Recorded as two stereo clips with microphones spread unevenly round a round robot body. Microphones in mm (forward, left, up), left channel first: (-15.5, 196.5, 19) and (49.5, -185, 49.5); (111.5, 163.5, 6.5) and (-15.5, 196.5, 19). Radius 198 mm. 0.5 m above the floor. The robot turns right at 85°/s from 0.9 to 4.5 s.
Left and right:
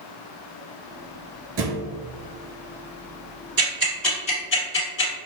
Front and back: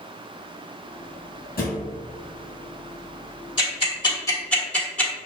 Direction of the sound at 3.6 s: 25° right.